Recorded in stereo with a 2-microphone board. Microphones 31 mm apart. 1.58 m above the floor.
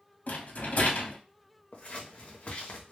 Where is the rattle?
60° left (ahead or behind), 0.6 m.